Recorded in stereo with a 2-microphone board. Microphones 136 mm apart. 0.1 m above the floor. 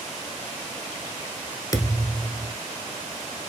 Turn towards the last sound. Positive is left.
turn(degrees=25)  # may be behind; listen again after turning